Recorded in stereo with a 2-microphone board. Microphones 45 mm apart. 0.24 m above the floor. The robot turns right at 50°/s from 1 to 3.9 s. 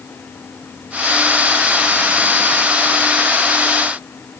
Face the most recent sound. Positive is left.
No sound to turn to.